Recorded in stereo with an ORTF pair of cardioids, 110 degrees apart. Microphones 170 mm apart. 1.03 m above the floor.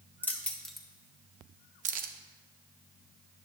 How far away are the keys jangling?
About 1.4 m.